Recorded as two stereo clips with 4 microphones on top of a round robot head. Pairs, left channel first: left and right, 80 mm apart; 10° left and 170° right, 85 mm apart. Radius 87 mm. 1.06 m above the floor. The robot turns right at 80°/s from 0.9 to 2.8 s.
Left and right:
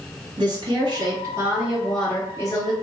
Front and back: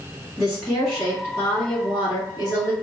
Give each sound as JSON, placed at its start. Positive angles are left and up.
{"t": 0.4, "sound": "a woman speaking", "azimuth_deg": -80, "distance_m": 2.0}